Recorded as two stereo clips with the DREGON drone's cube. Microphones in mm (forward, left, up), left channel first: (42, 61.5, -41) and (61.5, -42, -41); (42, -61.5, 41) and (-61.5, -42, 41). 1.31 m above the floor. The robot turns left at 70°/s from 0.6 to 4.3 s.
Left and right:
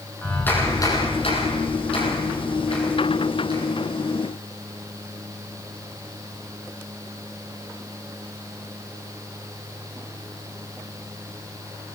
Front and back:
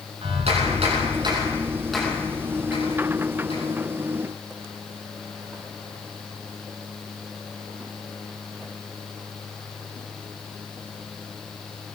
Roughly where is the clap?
Behind.